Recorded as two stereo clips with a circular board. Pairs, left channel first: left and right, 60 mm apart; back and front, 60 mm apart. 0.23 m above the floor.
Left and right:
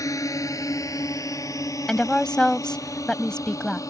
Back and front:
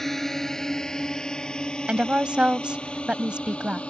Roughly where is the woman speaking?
Ahead left.